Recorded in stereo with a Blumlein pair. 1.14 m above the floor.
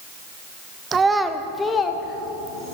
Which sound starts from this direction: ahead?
A child speaking, at 0.9 s.